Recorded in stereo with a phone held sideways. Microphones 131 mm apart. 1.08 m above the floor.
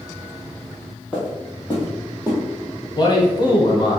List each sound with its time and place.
1.1 s footsteps: 10° right (ahead or behind), 1.8 m; by 2.9 s 25° right (ahead or behind), 1.3 m
3.0 s a man speaking: 35° left (ahead or behind), 0.8 m